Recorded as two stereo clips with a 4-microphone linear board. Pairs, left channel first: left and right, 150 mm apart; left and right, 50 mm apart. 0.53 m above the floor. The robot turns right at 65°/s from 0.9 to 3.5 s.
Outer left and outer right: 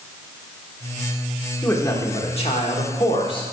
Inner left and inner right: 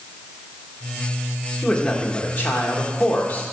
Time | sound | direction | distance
1.6 | a man speaking | 15° left | 1.3 m